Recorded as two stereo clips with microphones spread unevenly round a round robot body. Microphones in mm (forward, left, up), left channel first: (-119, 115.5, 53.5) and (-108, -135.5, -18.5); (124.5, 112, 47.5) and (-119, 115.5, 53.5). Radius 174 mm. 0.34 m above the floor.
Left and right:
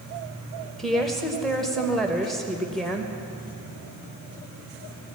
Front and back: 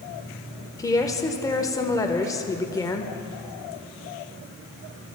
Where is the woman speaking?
45° right, 0.9 m.